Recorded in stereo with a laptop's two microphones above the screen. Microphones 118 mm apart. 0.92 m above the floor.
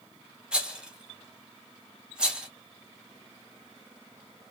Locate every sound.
0.5 s a rattle: 10° right (ahead or behind), 0.7 m